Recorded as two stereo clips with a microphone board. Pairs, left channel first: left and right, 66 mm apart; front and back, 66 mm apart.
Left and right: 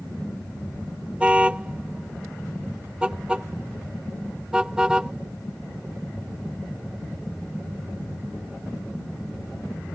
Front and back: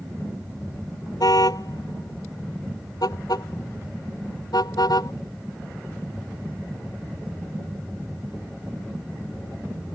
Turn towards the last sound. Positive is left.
turn(degrees=-10)